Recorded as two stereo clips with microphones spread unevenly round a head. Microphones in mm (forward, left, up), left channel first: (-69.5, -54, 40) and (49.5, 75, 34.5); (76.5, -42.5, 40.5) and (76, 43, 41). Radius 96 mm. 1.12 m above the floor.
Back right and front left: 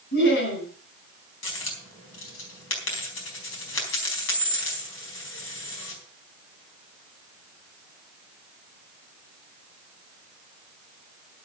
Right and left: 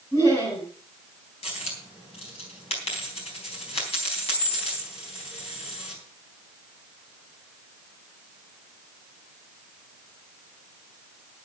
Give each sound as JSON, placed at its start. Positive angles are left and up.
{"t": 0.1, "sound": "laughter", "azimuth_deg": -155, "distance_m": 4.5}
{"t": 1.4, "sound": "a dropped coin", "azimuth_deg": -115, "distance_m": 4.0}